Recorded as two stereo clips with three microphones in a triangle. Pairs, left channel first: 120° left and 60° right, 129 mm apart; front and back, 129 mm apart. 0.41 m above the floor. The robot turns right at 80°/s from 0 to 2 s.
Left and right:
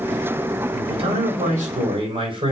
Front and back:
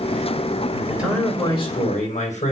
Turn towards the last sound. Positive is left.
turn(degrees=-15)